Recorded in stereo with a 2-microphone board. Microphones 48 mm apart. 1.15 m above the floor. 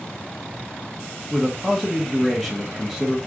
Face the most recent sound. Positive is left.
turn(degrees=0)  # may be behind; listen again after turning